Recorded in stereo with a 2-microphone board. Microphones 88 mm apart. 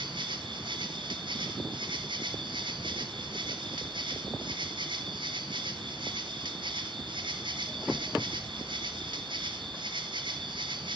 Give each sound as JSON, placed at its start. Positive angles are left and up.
{"t": 0.0, "sound": "an insect", "side_deg": -60, "distance_m": 1.7}